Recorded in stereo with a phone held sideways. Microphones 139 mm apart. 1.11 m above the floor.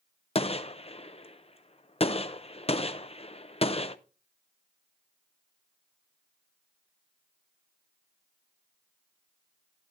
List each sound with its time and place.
0.3 s a gunshot: 45° left (ahead or behind), 0.5 m